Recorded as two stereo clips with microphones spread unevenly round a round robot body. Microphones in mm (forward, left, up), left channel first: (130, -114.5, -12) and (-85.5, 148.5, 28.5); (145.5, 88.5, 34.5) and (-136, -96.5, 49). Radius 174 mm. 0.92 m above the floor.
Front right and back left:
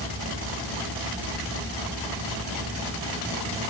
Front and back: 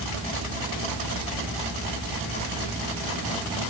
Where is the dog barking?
I don't hear a dog barking.